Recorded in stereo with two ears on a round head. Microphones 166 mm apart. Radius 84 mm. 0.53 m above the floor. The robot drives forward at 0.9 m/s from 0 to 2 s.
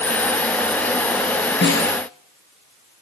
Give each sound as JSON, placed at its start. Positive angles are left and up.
{"t": 1.6, "sound": "a snare drum", "side_deg": 70, "distance_m": 5.0}